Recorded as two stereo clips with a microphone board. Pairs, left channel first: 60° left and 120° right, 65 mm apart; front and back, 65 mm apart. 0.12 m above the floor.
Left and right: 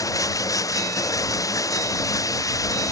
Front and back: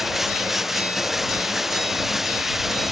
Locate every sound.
0.0 s running water: 95° left